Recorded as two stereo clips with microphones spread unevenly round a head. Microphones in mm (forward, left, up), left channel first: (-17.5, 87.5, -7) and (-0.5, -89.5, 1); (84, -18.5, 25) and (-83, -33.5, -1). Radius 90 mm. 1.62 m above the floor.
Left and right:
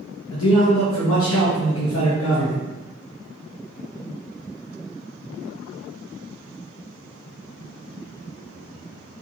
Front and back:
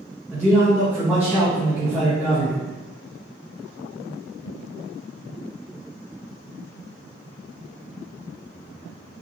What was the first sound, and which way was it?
A man speaking, 105° left.